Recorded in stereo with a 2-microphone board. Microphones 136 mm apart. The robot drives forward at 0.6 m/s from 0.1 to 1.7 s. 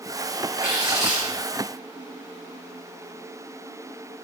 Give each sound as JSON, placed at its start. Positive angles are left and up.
{"t": 0.6, "sound": "tearing paper", "side_deg": -5, "distance_m": 4.0}